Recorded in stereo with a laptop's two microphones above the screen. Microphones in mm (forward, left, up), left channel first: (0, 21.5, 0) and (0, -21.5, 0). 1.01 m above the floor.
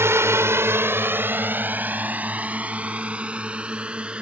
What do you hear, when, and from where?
0.0 s a drone: 75° right (ahead or behind); by 4.2 s 25° right (ahead or behind)